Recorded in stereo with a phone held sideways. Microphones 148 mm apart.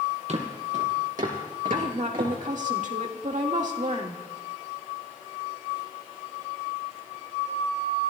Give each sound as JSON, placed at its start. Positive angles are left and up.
{"t": 0.3, "sound": "footsteps", "side_deg": -50, "distance_m": 2.5}
{"t": 1.7, "sound": "a woman speaking", "side_deg": -60, "distance_m": 1.9}